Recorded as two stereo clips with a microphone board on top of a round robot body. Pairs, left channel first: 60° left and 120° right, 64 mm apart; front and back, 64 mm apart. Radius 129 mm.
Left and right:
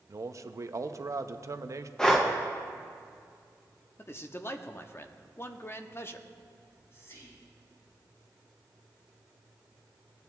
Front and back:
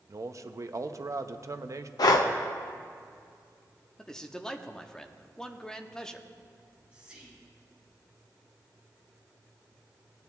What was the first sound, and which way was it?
A man speaking, 150° right.